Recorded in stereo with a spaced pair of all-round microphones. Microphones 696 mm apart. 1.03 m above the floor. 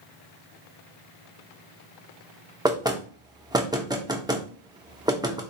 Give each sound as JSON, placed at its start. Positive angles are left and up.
{"t": 2.6, "sound": "knocking", "side_deg": -5, "distance_m": 0.6}